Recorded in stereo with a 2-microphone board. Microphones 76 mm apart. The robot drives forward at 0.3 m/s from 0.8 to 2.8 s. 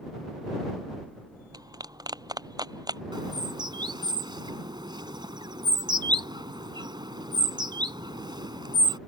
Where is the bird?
75° right (ahead or behind).